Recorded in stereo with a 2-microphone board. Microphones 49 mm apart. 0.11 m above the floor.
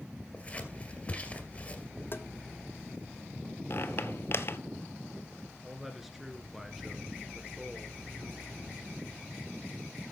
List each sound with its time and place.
0.3 s scissors: 25° left (ahead or behind), 2 m
2.1 s tapping: 50° left (ahead or behind), 0.9 m
3.7 s a squeak: 50° left (ahead or behind), 0.9 m
5.6 s a man speaking: 5° right (ahead or behind), 1.5 m